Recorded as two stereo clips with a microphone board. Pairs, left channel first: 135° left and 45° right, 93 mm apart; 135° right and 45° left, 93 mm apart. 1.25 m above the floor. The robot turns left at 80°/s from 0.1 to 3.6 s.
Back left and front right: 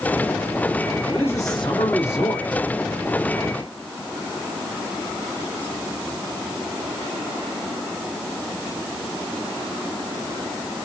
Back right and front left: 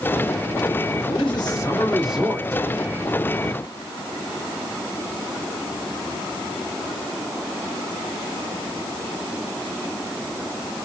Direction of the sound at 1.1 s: 145° right.